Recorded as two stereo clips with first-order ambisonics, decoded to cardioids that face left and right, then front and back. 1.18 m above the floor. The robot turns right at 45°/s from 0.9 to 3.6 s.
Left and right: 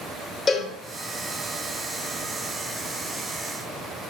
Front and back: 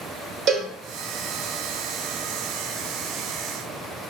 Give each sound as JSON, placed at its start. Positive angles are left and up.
{"t": 0.5, "sound": "a cowbell", "azimuth_deg": 155, "distance_m": 1.2}